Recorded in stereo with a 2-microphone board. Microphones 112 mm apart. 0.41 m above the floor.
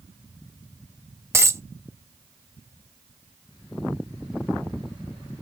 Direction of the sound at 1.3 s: 25° right (ahead or behind).